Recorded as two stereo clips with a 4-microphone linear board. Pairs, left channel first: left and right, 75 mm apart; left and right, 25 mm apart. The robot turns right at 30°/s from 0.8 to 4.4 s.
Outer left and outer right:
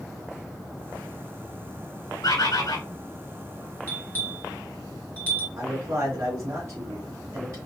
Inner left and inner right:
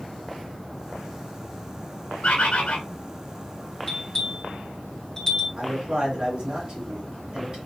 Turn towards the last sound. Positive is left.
turn(degrees=-40)  # may be behind; listen again after turning